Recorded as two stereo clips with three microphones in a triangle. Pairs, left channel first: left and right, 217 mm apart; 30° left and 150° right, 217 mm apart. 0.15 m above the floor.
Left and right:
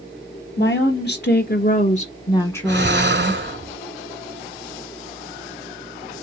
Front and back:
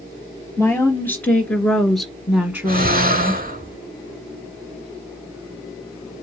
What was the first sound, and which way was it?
A woman speaking, 110° left.